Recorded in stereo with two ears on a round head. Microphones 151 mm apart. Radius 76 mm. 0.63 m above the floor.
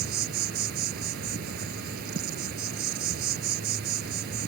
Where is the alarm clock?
No alarm clock in this recording.